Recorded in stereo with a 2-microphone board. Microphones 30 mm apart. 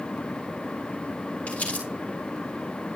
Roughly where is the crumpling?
Left.